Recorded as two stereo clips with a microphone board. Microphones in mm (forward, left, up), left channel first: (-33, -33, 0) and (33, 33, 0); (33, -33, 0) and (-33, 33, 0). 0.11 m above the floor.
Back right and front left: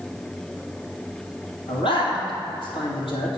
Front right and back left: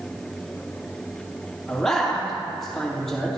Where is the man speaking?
130° right, 3 m.